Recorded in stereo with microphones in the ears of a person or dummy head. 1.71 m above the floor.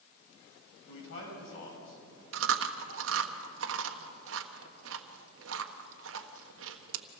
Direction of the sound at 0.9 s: 80° left.